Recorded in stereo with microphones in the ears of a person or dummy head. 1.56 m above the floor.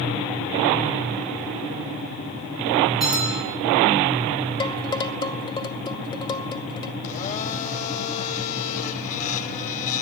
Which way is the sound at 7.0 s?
40° left (ahead or behind).